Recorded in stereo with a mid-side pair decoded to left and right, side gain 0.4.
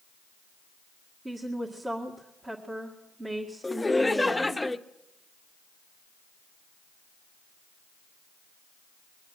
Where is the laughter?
15° left, 0.9 m.